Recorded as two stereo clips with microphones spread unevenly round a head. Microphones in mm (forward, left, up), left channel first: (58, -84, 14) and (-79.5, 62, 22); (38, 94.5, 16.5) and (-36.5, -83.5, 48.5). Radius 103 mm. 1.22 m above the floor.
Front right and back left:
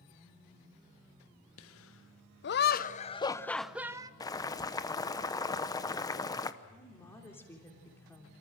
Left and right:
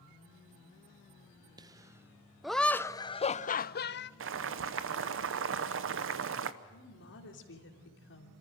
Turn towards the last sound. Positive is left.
turn(degrees=35)